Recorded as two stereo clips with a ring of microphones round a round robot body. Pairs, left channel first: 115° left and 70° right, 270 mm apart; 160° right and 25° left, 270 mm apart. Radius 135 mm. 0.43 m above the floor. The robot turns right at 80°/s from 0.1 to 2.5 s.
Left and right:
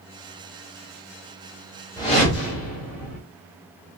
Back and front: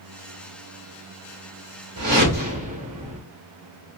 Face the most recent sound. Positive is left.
turn(degrees=80)